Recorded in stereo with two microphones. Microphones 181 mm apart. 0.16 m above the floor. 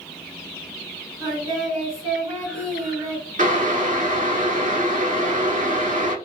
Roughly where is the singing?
Centre.